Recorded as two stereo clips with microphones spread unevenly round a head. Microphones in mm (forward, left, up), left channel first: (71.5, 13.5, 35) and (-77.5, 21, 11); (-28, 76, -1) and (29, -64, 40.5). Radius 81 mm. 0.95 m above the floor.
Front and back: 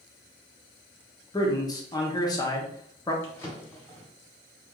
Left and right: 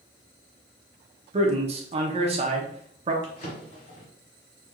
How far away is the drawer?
About 1.4 m.